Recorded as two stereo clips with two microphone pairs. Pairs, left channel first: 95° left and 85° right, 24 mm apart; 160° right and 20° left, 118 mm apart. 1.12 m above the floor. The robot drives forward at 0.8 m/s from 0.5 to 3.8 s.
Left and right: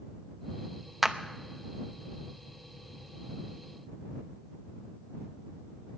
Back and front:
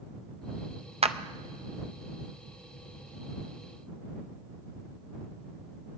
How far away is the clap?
About 0.6 m.